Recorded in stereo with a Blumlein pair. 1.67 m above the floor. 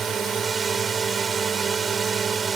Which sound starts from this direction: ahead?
A drone, at 0.0 s.